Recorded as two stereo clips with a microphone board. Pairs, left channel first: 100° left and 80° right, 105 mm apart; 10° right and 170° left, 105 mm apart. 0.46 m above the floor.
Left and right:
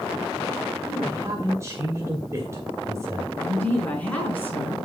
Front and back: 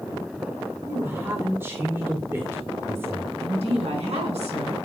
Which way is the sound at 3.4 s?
175° left.